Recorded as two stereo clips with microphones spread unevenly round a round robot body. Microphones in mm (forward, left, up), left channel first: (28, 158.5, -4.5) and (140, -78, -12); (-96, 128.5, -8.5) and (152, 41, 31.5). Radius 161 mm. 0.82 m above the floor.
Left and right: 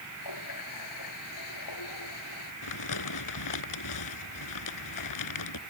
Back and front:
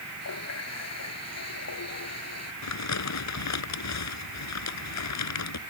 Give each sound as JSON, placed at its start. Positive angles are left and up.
{"t": 0.2, "sound": "a running tap", "azimuth_deg": 135}
{"t": 2.6, "sound": "crumpling", "azimuth_deg": 140}